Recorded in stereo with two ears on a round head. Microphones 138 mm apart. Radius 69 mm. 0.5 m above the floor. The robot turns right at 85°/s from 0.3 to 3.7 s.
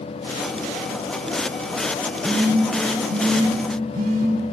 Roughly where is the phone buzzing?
Centre.